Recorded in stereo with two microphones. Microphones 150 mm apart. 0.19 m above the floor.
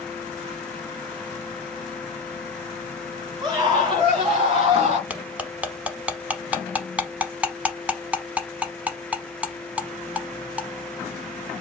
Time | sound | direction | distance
3.4 | a scream | 30° right (ahead or behind) | 1.4 m
5.1 | cutlery clinking | 10° right (ahead or behind) | 0.7 m